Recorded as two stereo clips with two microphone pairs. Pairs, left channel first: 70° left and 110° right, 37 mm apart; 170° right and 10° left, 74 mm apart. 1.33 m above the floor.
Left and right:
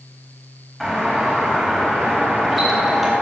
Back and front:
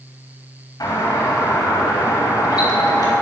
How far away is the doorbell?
About 3.5 m.